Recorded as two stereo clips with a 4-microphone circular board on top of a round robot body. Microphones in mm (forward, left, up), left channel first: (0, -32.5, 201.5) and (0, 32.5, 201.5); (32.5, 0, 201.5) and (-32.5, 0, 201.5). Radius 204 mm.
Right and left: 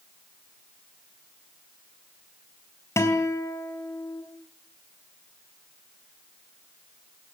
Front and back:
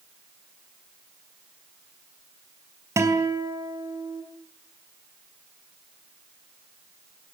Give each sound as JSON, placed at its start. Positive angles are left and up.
{"t": 3.0, "sound": "a guitar", "azimuth_deg": -135, "distance_m": 4.0}